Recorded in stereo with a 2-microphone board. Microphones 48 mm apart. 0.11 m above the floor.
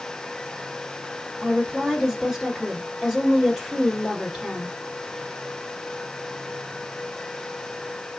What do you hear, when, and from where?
1.4 s a woman speaking: 10° right (ahead or behind), 1.8 m